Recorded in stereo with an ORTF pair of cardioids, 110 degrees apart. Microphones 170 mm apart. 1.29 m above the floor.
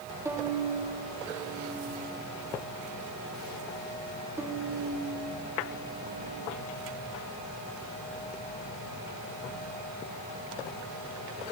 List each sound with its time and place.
0.2 s a violin: 15° right, 2.5 m